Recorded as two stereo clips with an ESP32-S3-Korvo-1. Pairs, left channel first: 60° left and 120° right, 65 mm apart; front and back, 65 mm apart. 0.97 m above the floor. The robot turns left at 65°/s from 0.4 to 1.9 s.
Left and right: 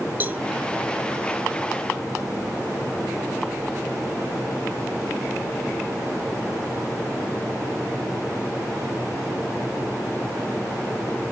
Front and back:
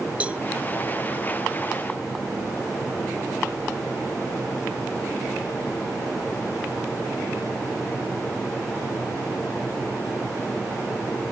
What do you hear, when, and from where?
0.2 s a cowbell: 135° right, 0.8 m